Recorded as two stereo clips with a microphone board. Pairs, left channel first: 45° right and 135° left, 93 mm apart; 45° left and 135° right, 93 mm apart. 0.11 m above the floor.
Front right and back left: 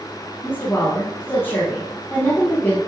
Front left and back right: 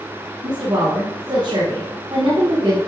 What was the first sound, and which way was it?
A woman speaking, 110° right.